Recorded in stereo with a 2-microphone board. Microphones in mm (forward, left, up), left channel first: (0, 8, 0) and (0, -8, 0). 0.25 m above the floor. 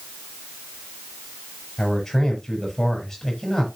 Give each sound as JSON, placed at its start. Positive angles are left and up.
{"t": 1.8, "sound": "a man speaking", "side_deg": 25, "distance_m": 6.0}